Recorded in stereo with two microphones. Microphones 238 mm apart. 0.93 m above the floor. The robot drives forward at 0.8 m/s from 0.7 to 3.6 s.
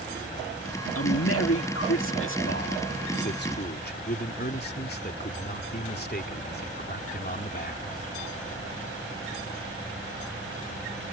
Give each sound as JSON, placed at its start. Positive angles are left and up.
{"t": 0.9, "sound": "a man speaking", "side_deg": 65}